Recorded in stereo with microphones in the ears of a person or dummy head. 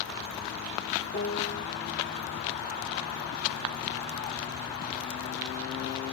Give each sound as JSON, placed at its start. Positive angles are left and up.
{"t": 1.1, "sound": "a piano", "side_deg": 50, "distance_m": 2.0}